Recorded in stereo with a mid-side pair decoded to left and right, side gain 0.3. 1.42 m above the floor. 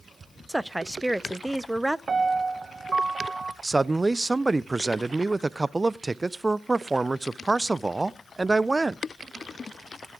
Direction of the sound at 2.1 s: 55° right.